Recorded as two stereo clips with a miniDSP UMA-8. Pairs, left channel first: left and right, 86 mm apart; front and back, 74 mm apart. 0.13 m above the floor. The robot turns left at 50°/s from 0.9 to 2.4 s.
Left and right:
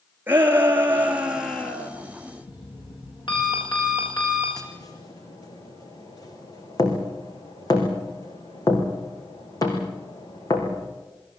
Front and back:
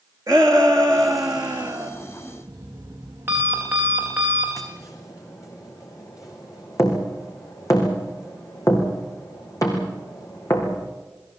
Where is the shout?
150° right, 2.5 m; by 1.9 s 160° left, 2.5 m.